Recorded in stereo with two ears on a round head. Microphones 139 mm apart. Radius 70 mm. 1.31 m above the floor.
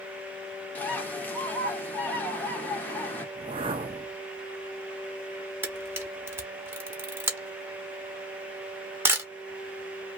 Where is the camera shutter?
15° right (ahead or behind), 0.9 m.